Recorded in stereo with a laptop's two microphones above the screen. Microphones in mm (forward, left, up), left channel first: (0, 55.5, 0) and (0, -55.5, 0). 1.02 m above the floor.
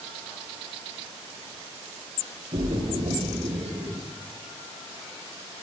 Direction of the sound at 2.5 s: 65° right (ahead or behind).